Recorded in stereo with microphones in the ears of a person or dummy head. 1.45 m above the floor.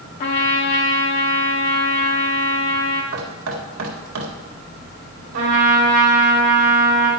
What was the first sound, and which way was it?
A trumpet, 30° left (ahead or behind).